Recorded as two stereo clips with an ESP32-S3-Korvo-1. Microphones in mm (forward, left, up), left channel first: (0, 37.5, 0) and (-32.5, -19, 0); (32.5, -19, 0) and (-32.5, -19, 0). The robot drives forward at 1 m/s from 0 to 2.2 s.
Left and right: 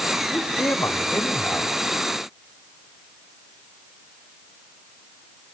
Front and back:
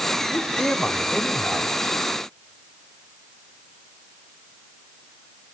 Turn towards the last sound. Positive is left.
turn(degrees=135)